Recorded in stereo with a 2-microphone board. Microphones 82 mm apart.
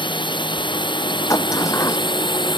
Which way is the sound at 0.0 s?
80° left.